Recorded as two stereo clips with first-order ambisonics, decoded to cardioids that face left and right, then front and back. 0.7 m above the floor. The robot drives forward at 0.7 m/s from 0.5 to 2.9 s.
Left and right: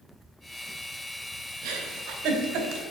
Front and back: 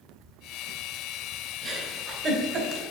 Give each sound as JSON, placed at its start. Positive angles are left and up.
{"t": 1.6, "sound": "a giggle", "azimuth_deg": -110, "distance_m": 1.7}